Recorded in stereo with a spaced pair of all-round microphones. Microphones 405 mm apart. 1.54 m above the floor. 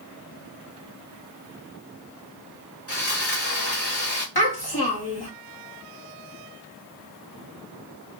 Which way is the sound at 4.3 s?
65° left (ahead or behind).